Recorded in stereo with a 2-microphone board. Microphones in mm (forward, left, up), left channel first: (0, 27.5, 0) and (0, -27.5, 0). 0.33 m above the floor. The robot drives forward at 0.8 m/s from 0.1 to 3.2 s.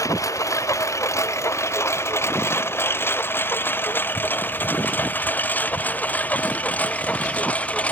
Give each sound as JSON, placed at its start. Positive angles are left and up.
{"t": 0.0, "sound": "a lawn mower", "side_deg": 75}